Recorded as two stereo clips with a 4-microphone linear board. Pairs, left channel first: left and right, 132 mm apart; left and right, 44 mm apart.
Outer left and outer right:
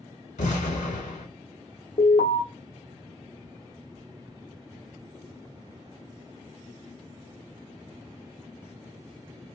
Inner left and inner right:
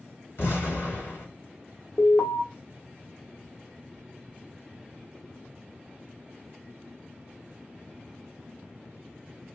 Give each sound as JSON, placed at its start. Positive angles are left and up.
{"t": 0.4, "sound": "an explosion", "side_deg": 75, "distance_m": 1.3}
{"t": 2.0, "sound": "an alarm", "side_deg": 55, "distance_m": 0.9}